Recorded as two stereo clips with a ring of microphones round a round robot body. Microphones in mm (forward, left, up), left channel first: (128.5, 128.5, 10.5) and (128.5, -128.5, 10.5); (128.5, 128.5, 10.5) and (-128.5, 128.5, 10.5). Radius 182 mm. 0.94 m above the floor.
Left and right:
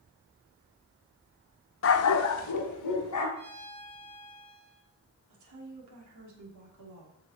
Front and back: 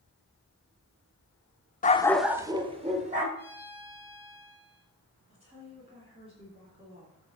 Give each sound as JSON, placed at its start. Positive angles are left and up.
{"t": 1.8, "sound": "a dog barking", "azimuth_deg": 55, "distance_m": 0.8}
{"t": 3.4, "sound": "a violin", "azimuth_deg": -95, "distance_m": 4.5}
{"t": 5.3, "sound": "a woman speaking", "azimuth_deg": -105, "distance_m": 3.0}